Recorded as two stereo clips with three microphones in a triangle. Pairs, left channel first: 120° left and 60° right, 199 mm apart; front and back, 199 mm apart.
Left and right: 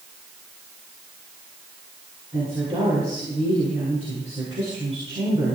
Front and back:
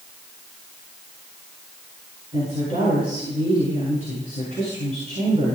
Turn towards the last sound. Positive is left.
turn(degrees=-120)